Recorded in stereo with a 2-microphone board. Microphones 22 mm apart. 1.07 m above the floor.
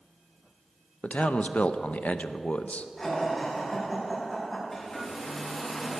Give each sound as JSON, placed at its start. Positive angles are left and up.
{"t": 1.0, "sound": "a man speaking", "side_deg": 75, "distance_m": 0.6}
{"t": 3.0, "sound": "laughter", "side_deg": 15, "distance_m": 6.0}
{"t": 4.7, "sound": "a hair dryer", "side_deg": 10, "distance_m": 4.0}